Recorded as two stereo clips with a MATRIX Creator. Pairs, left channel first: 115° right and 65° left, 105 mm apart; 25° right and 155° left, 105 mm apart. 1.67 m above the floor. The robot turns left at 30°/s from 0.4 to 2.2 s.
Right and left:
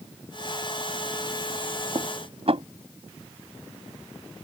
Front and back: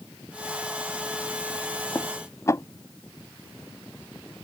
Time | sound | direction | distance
1.9 | dishes clattering | 45° left | ?